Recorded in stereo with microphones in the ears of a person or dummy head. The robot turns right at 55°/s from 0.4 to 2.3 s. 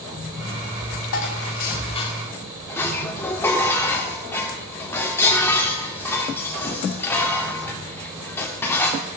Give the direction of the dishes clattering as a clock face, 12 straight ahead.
9 o'clock.